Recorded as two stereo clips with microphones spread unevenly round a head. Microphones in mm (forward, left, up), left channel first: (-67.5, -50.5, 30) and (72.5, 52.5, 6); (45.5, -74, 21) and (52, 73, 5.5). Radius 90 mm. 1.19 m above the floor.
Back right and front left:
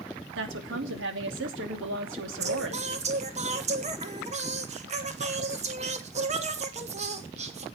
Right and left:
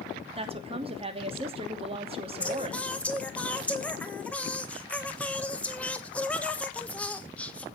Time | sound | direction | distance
0.3 | a woman speaking | 40° left | 2.5 m
2.4 | singing | 10° right | 1.6 m